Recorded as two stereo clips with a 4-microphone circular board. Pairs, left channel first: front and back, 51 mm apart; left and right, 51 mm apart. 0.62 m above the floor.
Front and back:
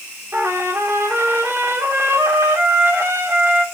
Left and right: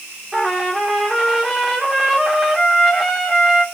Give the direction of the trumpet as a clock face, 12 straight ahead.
6 o'clock.